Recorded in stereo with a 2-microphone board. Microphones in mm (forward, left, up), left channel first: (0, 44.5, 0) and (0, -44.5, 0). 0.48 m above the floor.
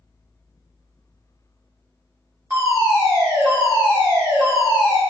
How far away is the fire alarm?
About 1.9 m.